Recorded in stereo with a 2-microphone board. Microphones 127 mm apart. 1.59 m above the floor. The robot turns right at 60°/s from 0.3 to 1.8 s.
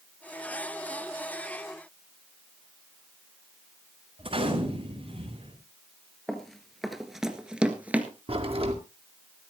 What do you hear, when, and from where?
4.2 s a gunshot: 45° right (ahead or behind), 5 m
6.3 s running footsteps: 5° left (ahead or behind), 1.7 m; by 8.1 s 15° right (ahead or behind), 1.6 m
8.3 s a crack: 50° right (ahead or behind), 2.0 m